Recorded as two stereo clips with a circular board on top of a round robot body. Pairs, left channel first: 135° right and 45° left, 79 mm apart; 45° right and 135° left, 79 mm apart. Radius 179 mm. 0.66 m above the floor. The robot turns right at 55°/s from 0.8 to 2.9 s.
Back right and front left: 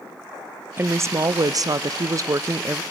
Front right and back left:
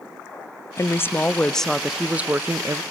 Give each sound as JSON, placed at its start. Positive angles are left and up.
{"t": 0.8, "sound": "a woman speaking", "azimuth_deg": -5, "distance_m": 0.6}